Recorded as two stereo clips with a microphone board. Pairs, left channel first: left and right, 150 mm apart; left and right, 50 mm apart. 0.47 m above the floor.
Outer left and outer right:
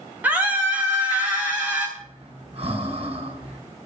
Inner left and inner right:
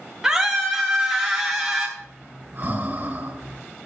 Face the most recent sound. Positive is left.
turn(degrees=-40)  # may be behind; listen again after turning